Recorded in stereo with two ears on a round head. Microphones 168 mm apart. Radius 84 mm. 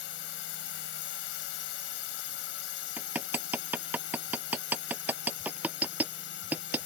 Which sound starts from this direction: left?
A drone, at 0.0 s.